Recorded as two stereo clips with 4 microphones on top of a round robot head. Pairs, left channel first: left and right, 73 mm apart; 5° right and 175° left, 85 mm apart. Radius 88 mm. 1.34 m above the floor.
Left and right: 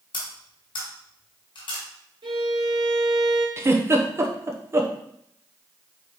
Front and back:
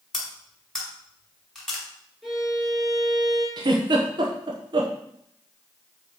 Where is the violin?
100° right, 3 m.